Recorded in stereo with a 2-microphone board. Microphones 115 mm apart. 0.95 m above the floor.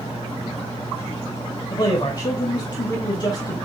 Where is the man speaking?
40° left (ahead or behind), 1.6 m.